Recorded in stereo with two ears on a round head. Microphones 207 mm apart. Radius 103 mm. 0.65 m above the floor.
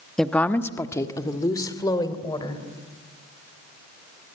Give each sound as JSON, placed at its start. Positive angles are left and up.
{"t": 0.2, "sound": "a woman speaking", "side_deg": 0, "distance_m": 0.9}